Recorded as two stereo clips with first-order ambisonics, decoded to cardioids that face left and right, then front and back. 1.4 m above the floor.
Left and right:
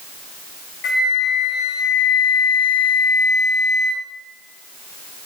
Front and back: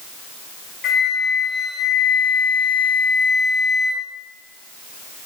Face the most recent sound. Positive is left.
turn(degrees=55)